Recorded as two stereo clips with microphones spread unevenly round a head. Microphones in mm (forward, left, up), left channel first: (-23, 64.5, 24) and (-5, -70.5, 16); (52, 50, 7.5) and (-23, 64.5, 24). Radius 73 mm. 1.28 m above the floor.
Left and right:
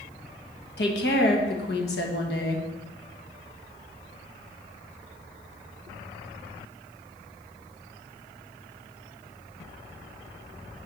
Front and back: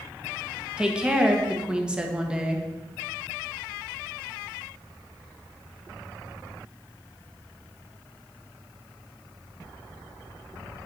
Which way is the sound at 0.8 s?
90° left.